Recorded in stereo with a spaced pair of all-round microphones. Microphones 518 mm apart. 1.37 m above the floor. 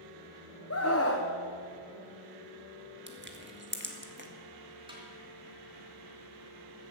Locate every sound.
0.7 s a scream: 30° left (ahead or behind), 1.1 m
3.1 s crushing: 20° right (ahead or behind), 1.5 m
4.9 s a snare drum: 10° right (ahead or behind), 3 m